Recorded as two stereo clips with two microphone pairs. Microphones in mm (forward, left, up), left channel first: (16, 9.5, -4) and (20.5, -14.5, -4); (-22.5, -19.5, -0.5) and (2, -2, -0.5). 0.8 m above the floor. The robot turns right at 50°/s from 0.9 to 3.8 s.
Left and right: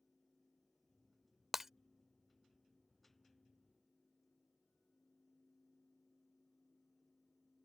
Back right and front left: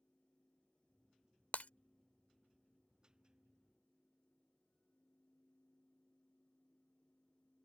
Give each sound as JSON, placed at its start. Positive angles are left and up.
{"t": 1.5, "sound": "breaking glass", "azimuth_deg": -160}